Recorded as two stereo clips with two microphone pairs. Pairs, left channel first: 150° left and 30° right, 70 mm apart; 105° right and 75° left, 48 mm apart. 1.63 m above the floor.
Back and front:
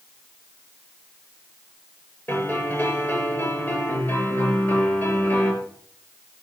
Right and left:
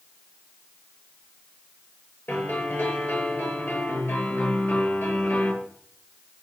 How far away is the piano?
About 8 m.